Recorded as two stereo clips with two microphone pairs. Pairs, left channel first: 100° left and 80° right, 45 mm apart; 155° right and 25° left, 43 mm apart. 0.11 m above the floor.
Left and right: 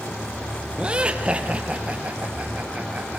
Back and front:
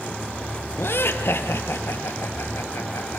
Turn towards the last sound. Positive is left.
turn(degrees=-140)